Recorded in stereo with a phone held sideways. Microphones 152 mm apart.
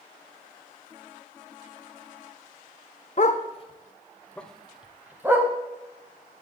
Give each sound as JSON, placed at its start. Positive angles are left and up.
{"t": 3.2, "sound": "a dog barking", "side_deg": 50, "distance_m": 0.9}